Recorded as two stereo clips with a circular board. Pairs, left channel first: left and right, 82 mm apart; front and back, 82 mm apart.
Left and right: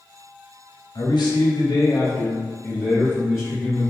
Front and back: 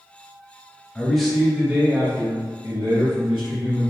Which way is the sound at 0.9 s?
80° left.